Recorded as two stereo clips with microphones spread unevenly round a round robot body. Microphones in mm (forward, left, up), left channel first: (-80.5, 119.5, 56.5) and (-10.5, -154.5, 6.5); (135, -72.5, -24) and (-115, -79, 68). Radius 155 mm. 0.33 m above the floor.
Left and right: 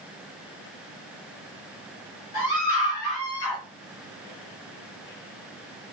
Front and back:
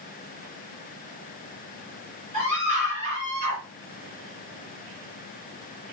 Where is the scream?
70° left, 7 m; by 3.6 s 65° left, 5.5 m.